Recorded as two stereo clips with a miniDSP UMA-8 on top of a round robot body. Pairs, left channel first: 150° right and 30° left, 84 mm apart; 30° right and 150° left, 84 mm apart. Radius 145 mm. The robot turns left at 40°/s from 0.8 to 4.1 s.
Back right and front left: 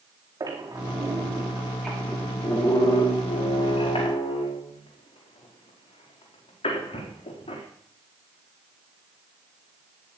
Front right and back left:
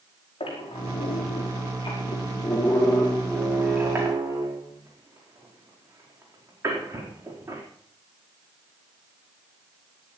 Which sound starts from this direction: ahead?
A squeak, at 0.4 s.